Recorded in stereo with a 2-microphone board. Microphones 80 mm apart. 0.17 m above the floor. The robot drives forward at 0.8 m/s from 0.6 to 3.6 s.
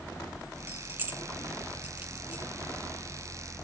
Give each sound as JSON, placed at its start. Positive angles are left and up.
{"t": 0.7, "sound": "keys jangling", "side_deg": -25, "distance_m": 0.9}